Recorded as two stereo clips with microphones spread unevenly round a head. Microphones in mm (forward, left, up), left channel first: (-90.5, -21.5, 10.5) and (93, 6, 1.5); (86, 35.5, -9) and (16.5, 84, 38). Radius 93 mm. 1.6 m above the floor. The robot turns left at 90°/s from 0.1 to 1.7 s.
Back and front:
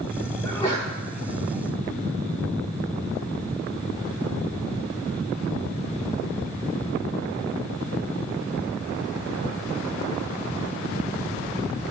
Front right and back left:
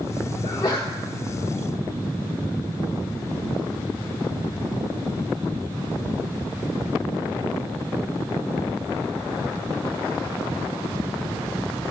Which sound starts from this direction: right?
A sneeze, at 0.4 s.